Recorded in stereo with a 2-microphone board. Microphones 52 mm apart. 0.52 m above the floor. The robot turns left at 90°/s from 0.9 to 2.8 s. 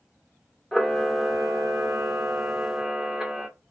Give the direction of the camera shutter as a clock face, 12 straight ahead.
12 o'clock.